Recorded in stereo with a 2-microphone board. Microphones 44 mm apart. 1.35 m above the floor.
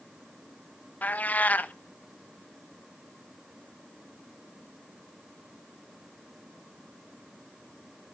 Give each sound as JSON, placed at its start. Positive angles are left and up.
{"t": 1.0, "sound": "a cat meowing", "side_deg": 35, "distance_m": 0.6}